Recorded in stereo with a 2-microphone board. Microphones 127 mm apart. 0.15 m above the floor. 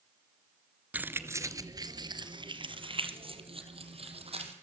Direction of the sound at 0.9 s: 10° right (ahead or behind).